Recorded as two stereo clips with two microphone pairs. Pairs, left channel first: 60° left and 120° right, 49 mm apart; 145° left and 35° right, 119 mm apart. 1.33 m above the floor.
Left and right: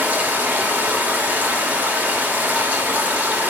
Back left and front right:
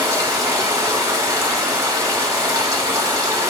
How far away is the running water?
About 1.2 m.